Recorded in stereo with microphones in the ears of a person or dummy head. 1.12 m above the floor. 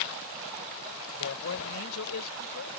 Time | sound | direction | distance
1.1 | a man speaking | 80° left | ?